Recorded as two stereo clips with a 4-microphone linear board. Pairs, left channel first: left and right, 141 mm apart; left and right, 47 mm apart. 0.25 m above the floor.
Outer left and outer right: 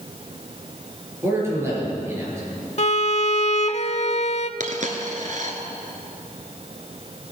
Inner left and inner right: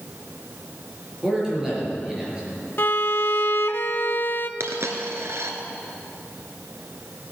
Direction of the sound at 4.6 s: 65° right (ahead or behind).